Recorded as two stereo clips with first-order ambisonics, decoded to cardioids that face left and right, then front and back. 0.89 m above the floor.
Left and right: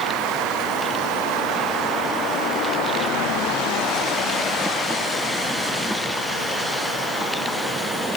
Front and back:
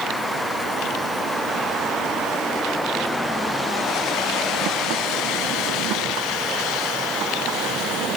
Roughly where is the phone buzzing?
I don't hear a phone buzzing.